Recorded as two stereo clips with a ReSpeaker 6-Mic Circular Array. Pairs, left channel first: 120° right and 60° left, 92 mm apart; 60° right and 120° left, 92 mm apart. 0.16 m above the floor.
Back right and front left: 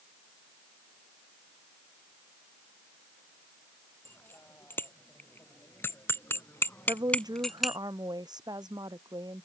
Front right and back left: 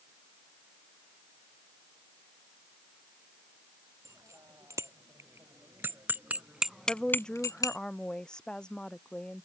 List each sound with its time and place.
4.0 s a bicycle bell: 175° left; by 7.8 s 25° right
6.9 s a woman speaking: 20° left